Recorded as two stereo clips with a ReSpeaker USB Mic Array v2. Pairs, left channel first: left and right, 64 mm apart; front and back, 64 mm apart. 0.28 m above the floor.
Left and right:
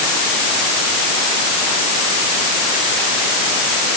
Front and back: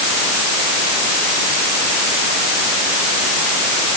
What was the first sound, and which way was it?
Only background noise.